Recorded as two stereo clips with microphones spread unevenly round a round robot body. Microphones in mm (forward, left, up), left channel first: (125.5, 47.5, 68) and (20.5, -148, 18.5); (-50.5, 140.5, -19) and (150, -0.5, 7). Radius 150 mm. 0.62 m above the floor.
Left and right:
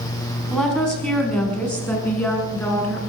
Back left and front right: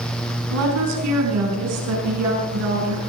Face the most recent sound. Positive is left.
turn(degrees=-20)